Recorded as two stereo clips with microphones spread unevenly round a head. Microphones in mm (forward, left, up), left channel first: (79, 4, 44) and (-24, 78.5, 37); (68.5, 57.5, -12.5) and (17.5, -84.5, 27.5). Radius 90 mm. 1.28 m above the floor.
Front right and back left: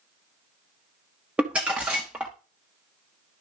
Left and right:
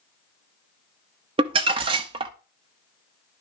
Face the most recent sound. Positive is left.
turn(degrees=-130)